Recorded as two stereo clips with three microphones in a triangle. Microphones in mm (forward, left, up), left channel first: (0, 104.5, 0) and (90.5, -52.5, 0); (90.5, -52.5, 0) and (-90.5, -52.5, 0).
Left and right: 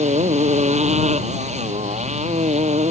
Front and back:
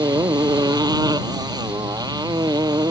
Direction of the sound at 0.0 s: 110° right.